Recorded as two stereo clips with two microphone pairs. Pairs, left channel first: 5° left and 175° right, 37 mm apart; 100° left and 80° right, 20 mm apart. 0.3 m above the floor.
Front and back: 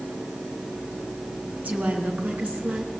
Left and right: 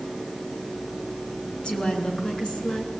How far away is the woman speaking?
About 4 m.